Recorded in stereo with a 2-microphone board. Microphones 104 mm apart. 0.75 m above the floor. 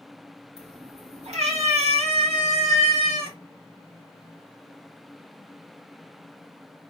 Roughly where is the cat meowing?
Right.